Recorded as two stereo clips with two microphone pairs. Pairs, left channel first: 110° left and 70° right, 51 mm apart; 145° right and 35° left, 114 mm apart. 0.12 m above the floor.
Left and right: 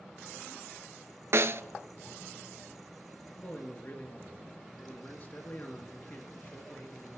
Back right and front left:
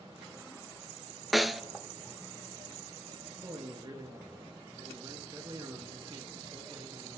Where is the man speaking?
70° left, 2.5 m.